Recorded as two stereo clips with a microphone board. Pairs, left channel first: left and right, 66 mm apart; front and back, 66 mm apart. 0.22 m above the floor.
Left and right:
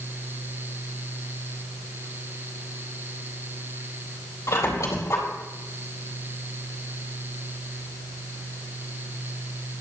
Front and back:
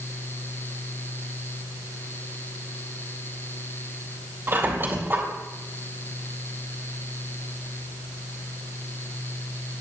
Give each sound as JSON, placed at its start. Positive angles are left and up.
{"t": 4.5, "sound": "a squeak", "azimuth_deg": 125, "distance_m": 3.5}